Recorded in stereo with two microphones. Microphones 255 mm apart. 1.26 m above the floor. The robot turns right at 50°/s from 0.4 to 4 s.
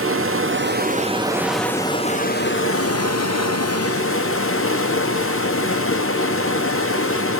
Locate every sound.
0.0 s running water: 60° right, 0.7 m; by 7.4 s 120° left, 0.7 m